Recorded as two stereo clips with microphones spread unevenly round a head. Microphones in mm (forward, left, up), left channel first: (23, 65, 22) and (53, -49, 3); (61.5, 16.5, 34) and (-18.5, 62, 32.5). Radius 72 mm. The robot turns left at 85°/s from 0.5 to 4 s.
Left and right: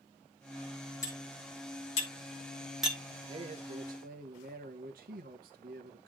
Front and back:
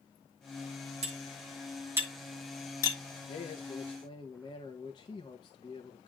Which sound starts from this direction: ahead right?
A man speaking, at 3.3 s.